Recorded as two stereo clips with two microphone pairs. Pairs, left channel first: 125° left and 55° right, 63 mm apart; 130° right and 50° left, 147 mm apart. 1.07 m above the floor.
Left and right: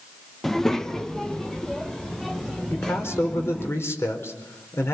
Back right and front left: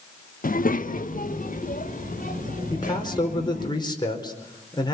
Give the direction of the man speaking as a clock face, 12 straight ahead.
6 o'clock.